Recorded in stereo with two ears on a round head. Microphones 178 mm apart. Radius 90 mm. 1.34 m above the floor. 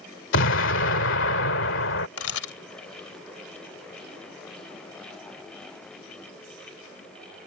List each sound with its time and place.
0.3 s an explosion: 70° left (ahead or behind)
2.2 s a camera shutter: 85° left